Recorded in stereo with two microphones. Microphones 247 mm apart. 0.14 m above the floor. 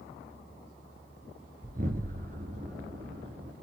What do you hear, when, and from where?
1.6 s an explosion: 35° right (ahead or behind), 1.6 m